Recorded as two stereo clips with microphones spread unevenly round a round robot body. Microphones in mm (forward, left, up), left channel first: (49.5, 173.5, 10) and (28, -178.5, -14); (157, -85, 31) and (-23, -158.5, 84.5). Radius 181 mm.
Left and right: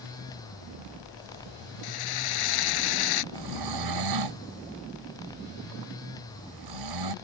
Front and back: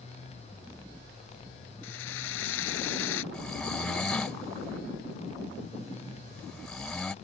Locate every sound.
1.8 s a drill: 60° left
3.3 s snoring: 65° right